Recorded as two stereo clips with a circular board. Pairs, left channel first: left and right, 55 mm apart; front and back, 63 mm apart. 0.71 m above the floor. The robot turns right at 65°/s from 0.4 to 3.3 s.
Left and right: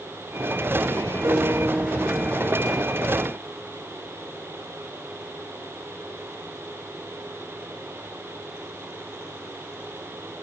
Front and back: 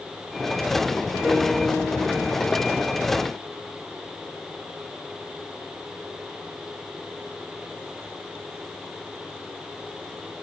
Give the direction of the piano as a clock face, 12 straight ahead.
3 o'clock.